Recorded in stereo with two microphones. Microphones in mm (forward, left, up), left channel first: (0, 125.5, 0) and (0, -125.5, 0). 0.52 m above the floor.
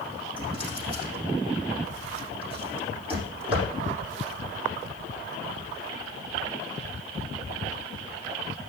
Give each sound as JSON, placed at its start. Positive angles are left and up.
{"t": 0.4, "sound": "a drawer", "side_deg": -20, "distance_m": 5.5}